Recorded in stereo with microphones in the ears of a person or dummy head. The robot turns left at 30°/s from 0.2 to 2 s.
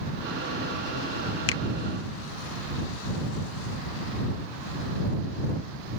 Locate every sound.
1.5 s a finger snap: 75° left (ahead or behind)